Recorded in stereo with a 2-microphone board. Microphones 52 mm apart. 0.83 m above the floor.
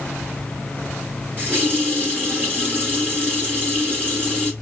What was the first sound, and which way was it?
A running tap, 30° right (ahead or behind).